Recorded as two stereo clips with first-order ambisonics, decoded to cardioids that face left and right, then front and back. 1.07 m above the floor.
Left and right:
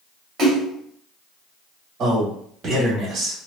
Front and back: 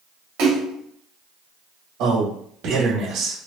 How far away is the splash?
About 1.4 m.